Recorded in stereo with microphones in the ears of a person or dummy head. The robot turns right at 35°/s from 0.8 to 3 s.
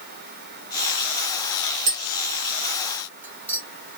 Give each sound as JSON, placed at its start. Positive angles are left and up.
{"t": 1.9, "sound": "tapping", "side_deg": -50, "distance_m": 1.2}